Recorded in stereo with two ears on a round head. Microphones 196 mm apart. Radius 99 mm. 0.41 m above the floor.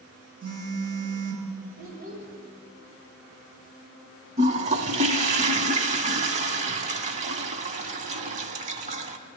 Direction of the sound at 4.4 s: 35° right (ahead or behind).